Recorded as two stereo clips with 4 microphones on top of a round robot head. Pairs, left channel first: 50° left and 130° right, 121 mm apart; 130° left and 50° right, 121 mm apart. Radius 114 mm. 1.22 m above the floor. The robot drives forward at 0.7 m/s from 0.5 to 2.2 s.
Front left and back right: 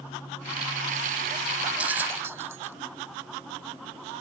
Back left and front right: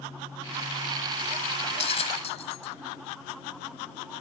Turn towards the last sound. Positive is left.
turn(degrees=165)